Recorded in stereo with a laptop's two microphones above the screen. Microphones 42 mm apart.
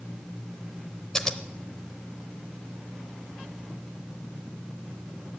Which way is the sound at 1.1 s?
15° left (ahead or behind).